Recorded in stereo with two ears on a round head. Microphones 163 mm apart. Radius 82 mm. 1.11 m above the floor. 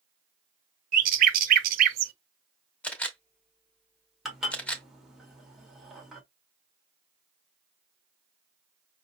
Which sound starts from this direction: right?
A bird, at 0.9 s.